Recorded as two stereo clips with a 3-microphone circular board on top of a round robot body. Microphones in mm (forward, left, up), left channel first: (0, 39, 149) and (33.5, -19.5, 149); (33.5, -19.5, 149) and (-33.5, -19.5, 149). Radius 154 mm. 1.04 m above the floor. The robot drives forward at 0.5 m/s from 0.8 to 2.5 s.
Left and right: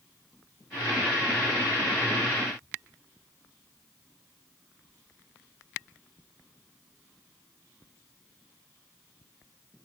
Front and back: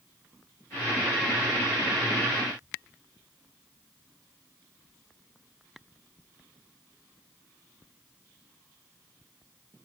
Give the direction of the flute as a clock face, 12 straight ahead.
No flute in this recording.